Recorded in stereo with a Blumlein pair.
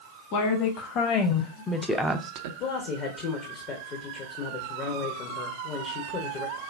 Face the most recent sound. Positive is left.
turn(degrees=35)